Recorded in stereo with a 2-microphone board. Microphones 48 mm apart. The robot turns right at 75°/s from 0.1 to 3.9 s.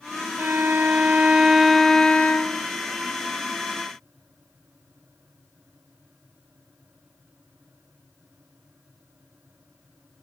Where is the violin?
105° right, 0.6 m; by 2.6 s 65° left, 0.6 m.